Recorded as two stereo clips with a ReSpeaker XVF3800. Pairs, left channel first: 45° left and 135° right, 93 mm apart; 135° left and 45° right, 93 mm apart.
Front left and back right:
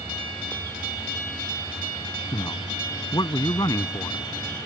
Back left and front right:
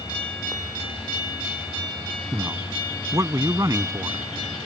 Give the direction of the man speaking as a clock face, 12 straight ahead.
12 o'clock.